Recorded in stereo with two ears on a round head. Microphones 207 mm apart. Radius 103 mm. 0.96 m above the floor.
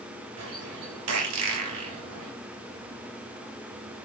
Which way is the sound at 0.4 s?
70° right (ahead or behind).